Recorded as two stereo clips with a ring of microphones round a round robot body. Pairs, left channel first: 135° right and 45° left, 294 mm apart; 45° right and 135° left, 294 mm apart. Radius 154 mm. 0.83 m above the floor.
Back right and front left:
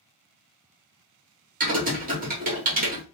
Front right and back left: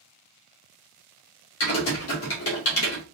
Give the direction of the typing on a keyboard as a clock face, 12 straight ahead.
12 o'clock.